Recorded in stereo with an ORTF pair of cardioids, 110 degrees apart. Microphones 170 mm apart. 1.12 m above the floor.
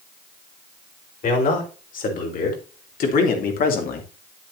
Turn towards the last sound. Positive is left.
turn(degrees=60)